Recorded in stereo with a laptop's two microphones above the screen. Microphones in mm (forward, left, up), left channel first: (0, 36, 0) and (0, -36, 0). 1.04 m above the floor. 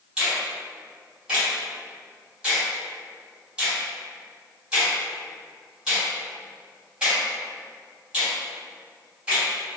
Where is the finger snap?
15° right (ahead or behind), 1.4 m.